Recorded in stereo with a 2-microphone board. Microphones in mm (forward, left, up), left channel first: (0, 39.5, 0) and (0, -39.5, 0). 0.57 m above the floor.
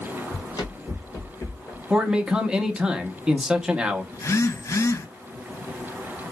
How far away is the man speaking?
About 0.7 m.